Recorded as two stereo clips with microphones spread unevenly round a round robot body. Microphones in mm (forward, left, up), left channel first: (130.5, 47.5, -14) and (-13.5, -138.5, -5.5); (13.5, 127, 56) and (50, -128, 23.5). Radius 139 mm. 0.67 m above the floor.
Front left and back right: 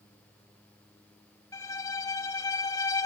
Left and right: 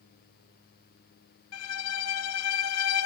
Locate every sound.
1.5 s a violin: 130° left, 1.5 m